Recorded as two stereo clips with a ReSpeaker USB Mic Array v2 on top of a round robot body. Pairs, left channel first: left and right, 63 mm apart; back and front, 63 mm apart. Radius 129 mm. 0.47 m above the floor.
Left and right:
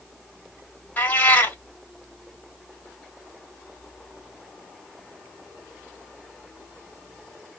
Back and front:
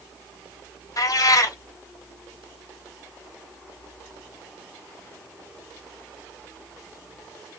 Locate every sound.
1.0 s a cat meowing: 150° left, 1.6 m